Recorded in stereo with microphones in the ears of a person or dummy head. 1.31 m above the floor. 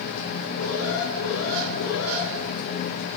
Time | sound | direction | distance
0.6 | an alarm | 85° left | 5.5 m